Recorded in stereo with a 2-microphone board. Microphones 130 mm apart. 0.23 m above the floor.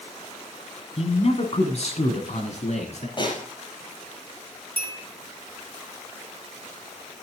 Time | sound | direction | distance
1.0 | a man speaking | 50° left (ahead or behind) | 2.0 m
3.2 | a snare drum | 40° left (ahead or behind) | 5.5 m
4.8 | a bell | 15° left (ahead or behind) | 3.5 m